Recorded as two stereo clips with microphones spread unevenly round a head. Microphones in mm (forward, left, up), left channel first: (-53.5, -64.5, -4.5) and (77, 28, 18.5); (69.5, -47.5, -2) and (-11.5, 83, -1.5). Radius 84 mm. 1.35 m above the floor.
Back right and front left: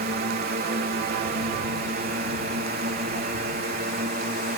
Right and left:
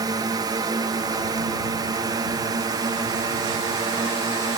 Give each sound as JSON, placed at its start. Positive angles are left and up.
{"t": 0.0, "sound": "a drone", "azimuth_deg": 65}